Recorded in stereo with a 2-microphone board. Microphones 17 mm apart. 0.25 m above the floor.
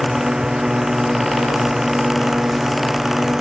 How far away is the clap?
I don't hear a clap.